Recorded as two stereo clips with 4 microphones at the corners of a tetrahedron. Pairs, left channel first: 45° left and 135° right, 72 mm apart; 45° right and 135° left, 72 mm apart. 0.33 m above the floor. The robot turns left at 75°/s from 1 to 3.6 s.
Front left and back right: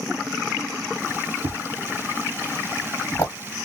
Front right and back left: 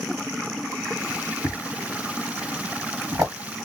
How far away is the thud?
About 2 m.